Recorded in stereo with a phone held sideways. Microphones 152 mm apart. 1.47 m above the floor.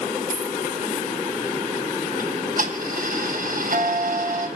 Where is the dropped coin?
75° left (ahead or behind), 6.5 m.